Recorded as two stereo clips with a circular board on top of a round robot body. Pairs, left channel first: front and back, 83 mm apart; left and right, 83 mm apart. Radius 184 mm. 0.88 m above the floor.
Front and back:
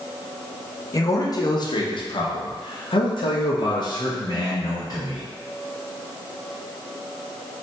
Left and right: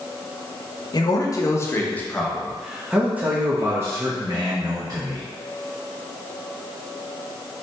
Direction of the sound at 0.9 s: 50° left.